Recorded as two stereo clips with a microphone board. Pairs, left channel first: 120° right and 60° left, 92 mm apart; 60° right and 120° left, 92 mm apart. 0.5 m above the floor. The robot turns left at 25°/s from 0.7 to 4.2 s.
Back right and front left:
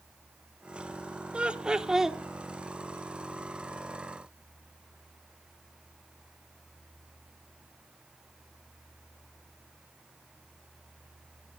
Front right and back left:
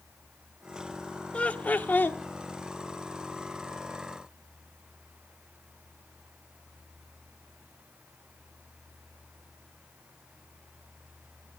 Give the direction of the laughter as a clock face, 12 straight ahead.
12 o'clock.